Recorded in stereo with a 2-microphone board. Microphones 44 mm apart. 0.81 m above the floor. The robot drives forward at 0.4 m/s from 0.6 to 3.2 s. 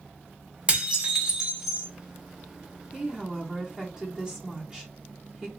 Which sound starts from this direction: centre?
A woman speaking, at 2.9 s.